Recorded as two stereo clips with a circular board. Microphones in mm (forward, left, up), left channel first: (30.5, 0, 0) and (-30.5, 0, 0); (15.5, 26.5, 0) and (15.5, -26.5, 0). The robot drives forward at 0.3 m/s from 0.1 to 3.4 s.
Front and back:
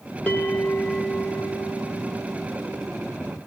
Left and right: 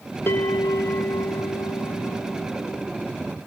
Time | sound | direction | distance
0.3 | a bell | 65° left | 1.0 m